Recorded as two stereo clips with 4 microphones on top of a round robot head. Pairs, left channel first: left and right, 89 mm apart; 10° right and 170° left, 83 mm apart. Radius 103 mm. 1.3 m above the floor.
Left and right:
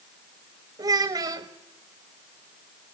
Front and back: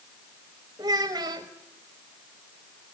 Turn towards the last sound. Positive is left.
turn(degrees=-130)